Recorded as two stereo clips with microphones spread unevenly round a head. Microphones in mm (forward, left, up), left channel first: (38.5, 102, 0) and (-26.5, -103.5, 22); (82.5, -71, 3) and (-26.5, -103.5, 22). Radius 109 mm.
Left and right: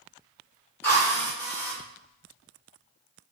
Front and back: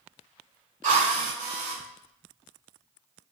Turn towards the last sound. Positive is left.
turn(degrees=155)